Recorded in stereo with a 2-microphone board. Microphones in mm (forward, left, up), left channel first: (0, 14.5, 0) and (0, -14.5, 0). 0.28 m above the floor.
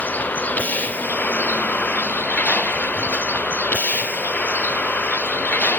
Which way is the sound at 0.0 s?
85° left.